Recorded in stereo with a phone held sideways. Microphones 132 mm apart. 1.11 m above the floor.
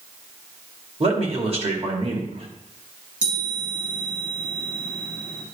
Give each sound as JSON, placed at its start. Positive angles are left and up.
{"t": 1.0, "sound": "a man speaking", "side_deg": -50, "distance_m": 2.0}
{"t": 3.2, "sound": "a chime", "side_deg": -75, "distance_m": 3.0}